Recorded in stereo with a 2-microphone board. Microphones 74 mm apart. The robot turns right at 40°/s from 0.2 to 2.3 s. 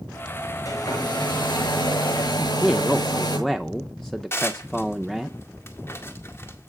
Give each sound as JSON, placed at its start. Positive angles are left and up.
{"t": 0.7, "sound": "a hair dryer", "azimuth_deg": 45, "distance_m": 7.0}
{"t": 2.4, "sound": "a man speaking", "side_deg": 5, "distance_m": 0.6}
{"t": 4.3, "sound": "dishes clattering", "side_deg": 30, "distance_m": 1.8}